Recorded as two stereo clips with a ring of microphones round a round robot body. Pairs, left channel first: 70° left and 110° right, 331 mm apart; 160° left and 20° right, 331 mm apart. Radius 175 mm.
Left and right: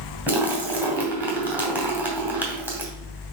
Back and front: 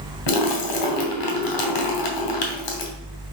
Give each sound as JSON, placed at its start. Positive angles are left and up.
{"t": 0.3, "sound": "a splash", "azimuth_deg": 160, "distance_m": 2.5}